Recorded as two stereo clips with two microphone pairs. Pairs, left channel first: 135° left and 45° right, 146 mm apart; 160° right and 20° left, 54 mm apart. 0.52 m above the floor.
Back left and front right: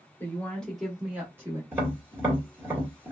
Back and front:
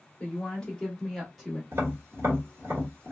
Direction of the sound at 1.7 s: 20° left.